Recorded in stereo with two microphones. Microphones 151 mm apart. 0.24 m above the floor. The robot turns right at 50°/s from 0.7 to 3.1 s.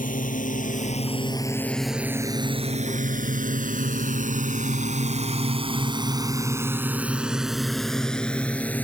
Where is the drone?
65° left (ahead or behind); by 8.8 s 10° left (ahead or behind).